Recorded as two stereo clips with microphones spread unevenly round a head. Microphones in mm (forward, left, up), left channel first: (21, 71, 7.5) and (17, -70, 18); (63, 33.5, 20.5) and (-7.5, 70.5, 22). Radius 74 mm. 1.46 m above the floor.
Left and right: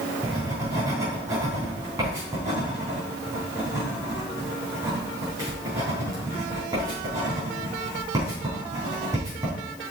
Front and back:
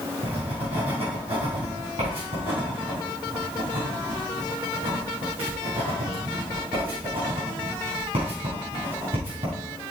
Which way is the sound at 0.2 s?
160° right.